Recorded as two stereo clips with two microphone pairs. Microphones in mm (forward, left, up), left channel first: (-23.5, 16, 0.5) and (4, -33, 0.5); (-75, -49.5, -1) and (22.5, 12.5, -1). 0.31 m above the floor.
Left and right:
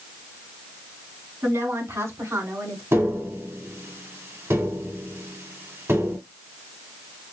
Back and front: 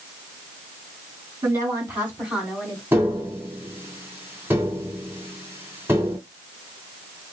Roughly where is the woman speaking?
Ahead right.